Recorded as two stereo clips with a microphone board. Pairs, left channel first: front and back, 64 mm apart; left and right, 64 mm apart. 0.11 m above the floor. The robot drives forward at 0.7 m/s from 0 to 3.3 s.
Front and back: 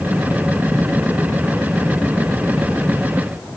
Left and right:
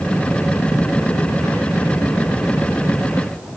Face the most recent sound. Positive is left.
No sound to turn to.